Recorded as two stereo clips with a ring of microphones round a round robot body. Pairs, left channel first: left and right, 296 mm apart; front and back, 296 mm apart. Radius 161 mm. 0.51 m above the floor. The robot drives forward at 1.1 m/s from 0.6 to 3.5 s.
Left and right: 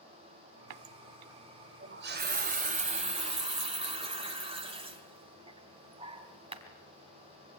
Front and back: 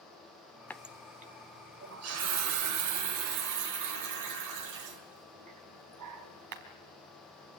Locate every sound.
0.7 s a running tap: 85° right, 1.1 m; by 6.6 s 160° right, 3 m